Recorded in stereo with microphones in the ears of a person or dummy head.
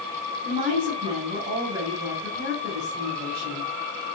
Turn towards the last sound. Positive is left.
turn(degrees=-45)  # may be behind; listen again after turning